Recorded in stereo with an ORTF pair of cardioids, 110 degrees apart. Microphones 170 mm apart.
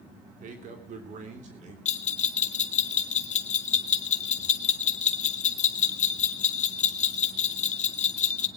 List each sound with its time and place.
0.4 s a man speaking: 55° right, 3 m; by 1.8 s 45° right, 3.5 m
1.9 s a bell: 45° left, 1.3 m